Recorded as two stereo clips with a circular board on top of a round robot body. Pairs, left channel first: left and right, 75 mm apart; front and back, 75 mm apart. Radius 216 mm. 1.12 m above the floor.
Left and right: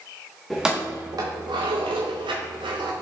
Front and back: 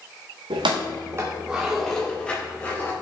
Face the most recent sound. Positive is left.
turn(degrees=-70)